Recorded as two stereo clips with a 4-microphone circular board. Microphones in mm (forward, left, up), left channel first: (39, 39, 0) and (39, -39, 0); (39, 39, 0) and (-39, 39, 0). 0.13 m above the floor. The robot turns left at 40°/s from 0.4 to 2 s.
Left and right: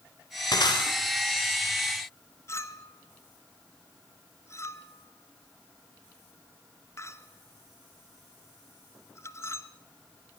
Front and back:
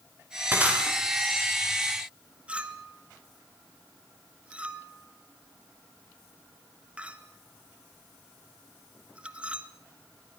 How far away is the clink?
About 1.4 m.